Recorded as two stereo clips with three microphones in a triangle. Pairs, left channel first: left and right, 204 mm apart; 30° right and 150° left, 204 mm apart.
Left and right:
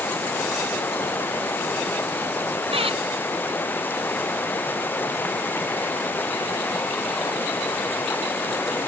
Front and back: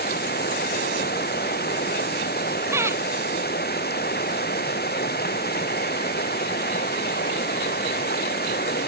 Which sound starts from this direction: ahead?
Running water, at 0.0 s.